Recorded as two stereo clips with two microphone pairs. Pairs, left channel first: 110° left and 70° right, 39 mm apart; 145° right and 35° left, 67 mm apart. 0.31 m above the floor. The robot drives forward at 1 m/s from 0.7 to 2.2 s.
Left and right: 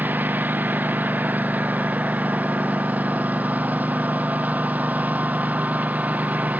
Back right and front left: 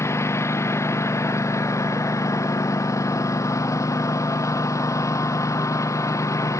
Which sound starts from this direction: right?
A lawn mower, at 0.0 s.